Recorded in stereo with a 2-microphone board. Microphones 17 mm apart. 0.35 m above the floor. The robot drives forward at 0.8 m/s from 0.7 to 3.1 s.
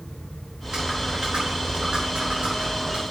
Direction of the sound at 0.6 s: 60° right (ahead or behind).